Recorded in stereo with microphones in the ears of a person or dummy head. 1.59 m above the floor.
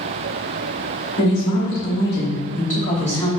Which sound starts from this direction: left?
A woman speaking, at 1.2 s.